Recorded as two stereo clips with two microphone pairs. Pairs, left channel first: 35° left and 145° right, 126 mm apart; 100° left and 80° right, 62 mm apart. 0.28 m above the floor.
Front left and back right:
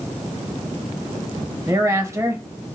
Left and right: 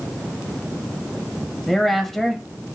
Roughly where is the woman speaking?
Behind.